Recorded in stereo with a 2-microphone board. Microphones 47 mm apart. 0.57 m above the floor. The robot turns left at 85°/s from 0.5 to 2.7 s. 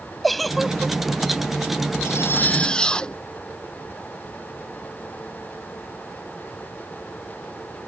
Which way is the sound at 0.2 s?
Straight ahead.